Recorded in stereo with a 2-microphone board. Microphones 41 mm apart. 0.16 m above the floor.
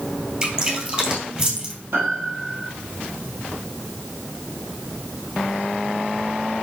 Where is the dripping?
20° right (ahead or behind), 2.5 m.